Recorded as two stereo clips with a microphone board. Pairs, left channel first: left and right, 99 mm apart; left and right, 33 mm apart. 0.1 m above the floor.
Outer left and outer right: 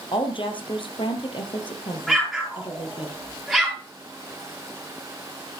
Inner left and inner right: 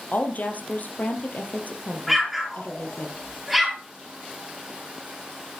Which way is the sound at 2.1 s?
5° left (ahead or behind).